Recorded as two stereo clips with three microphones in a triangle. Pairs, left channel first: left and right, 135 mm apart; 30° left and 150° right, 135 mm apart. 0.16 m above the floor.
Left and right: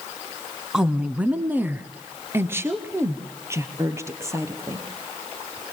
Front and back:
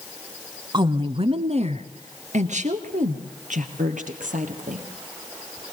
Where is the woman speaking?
175° right, 1.2 m; by 4.9 s 160° right, 4 m.